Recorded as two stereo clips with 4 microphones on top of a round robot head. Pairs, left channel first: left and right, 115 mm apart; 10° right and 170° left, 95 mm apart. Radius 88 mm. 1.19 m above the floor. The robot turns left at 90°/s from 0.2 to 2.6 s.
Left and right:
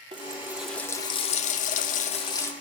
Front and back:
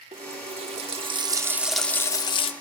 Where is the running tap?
140° right, 1.0 m; by 2.5 s 15° left, 1.0 m.